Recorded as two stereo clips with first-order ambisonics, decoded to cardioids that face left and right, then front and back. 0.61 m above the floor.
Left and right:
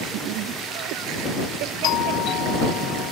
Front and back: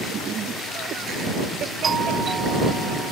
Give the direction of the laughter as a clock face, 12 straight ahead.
4 o'clock.